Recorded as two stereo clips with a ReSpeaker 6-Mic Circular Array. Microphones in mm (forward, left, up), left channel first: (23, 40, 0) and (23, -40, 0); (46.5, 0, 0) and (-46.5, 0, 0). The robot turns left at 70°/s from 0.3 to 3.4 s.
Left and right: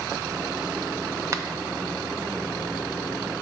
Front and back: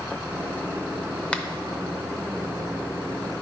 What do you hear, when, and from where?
1.3 s a finger snap: 70° right, 0.7 m; by 1.4 s 80° right, 0.7 m